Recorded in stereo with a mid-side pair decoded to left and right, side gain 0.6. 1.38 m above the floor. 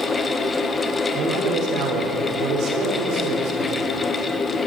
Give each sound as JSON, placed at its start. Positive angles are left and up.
{"t": 0.0, "sound": "a fan", "azimuth_deg": 25, "distance_m": 1.3}
{"t": 1.1, "sound": "a man speaking", "azimuth_deg": -60, "distance_m": 4.0}